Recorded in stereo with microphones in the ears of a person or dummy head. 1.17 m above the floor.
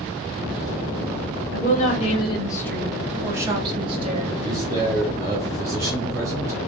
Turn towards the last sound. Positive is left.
turn(degrees=-15)  # may be behind; listen again after turning